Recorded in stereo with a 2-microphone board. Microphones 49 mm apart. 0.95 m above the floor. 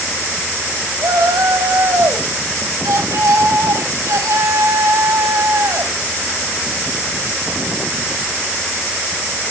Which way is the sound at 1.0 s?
85° right.